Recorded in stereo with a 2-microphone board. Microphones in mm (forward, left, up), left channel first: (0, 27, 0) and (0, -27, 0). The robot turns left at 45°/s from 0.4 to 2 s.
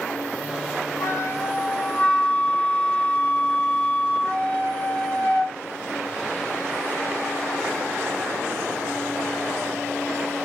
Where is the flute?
65° left, 3.5 m; by 5.6 s 20° left, 3.5 m.